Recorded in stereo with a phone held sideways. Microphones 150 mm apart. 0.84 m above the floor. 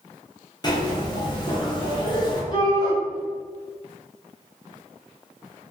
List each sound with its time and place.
0.6 s a zipper: 30° left (ahead or behind), 0.7 m
2.5 s a shout: 30° left (ahead or behind), 0.8 m